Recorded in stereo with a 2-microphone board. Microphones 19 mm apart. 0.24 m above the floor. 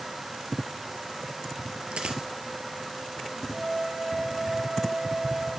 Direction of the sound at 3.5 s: 75° right (ahead or behind).